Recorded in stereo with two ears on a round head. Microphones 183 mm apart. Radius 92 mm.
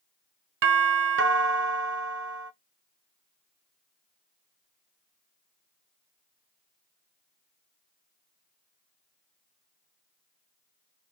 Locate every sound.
0.6 s a doorbell: 60° right (ahead or behind), 0.9 m